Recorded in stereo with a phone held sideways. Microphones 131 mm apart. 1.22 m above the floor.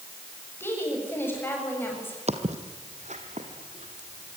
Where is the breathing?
I don't hear breathing.